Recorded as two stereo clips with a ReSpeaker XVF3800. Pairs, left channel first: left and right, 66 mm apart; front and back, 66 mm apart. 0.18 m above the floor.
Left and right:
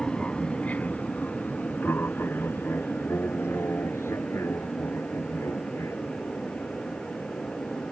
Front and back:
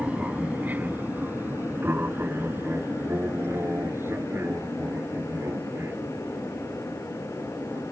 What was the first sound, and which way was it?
An aircraft, 145° left.